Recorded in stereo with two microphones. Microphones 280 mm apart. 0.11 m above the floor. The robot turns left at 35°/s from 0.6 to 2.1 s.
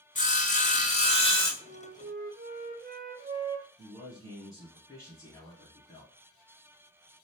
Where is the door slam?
I don't hear a door slam.